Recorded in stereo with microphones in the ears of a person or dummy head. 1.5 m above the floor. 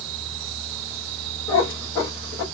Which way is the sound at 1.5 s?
15° left (ahead or behind).